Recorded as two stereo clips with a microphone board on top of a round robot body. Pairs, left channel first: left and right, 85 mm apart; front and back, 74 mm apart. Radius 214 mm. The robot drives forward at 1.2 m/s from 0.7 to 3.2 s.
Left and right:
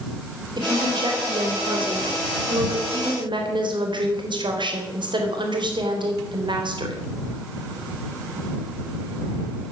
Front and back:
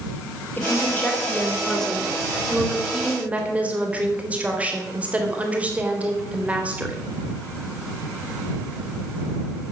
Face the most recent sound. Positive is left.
turn(degrees=-110)